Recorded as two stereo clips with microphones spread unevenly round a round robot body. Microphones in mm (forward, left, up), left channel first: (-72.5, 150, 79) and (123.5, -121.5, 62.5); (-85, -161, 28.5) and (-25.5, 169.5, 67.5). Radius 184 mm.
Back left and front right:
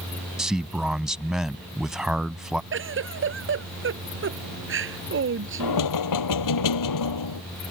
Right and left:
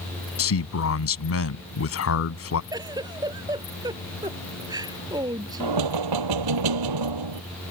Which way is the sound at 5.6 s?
95° left.